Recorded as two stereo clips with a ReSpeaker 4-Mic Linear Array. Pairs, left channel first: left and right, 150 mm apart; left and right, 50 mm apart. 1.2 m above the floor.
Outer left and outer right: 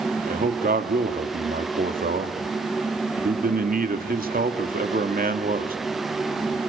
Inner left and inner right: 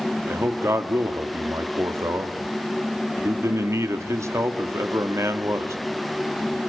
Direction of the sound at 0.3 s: 75° right (ahead or behind).